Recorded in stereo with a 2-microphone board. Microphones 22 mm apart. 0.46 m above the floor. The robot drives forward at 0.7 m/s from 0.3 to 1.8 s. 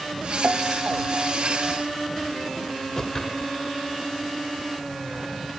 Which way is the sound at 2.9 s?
25° left (ahead or behind).